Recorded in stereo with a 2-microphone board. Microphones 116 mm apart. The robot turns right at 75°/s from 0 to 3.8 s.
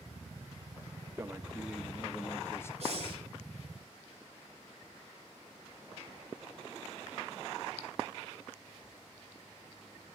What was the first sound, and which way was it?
A man speaking, 20° right (ahead or behind).